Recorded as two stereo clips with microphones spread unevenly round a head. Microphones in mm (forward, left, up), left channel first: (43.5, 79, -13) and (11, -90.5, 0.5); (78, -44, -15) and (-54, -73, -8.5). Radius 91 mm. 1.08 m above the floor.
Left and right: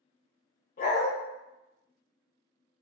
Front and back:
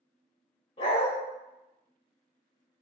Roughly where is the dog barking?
Ahead left.